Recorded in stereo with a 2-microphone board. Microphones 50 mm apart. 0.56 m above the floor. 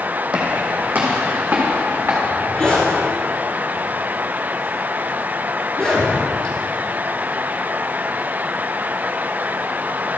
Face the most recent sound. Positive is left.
turn(degrees=20)  # may be behind; listen again after turning